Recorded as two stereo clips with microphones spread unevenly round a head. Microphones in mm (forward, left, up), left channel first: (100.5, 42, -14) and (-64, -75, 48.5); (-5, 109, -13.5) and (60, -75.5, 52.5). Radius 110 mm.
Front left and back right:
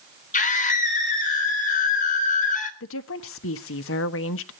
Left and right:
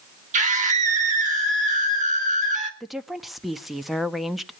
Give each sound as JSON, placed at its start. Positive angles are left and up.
{"t": 0.3, "sound": "a scream", "azimuth_deg": -15, "distance_m": 3.5}
{"t": 2.8, "sound": "a woman speaking", "azimuth_deg": 20, "distance_m": 1.1}